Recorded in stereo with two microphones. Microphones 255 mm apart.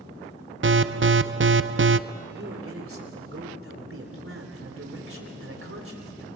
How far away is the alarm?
About 0.5 m.